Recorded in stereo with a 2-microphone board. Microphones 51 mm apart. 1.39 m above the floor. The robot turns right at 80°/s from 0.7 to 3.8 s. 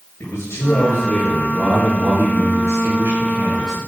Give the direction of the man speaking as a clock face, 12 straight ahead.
8 o'clock.